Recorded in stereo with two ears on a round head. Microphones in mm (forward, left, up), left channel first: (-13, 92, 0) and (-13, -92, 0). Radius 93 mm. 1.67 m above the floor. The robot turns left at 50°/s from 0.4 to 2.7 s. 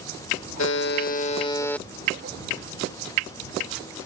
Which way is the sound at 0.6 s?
65° left.